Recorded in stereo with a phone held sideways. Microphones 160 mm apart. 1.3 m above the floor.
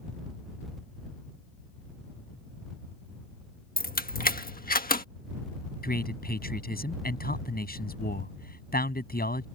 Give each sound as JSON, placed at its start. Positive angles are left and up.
{"t": 3.8, "sound": "keys jangling", "side_deg": 60}
{"t": 5.8, "sound": "a man speaking", "side_deg": 70}